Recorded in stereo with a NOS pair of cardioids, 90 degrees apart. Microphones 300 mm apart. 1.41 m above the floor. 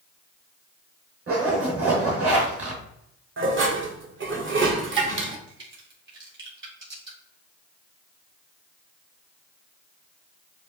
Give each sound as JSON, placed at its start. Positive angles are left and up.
{"t": 1.3, "sound": "a zipper", "azimuth_deg": -45, "distance_m": 2.0}
{"t": 3.4, "sound": "dishes clattering", "azimuth_deg": -45, "distance_m": 1.0}
{"t": 5.5, "sound": "a crack", "azimuth_deg": -40, "distance_m": 2.5}